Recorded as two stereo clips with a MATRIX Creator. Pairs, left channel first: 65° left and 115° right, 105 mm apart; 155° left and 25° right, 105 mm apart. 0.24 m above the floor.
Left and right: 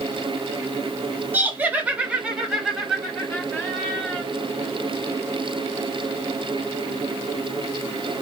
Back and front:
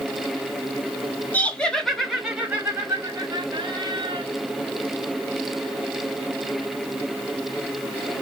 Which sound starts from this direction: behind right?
Laughter, at 1.3 s.